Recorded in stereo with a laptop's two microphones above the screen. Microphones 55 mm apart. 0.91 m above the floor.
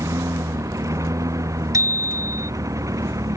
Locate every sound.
0.0 s a lawn mower: 70° right (ahead or behind); by 3.4 s 75° right (ahead or behind)
1.7 s a bicycle bell: 85° right